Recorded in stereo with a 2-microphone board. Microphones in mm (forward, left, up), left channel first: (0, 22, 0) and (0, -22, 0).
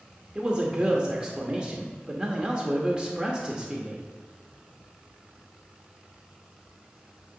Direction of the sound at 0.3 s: 20° right (ahead or behind).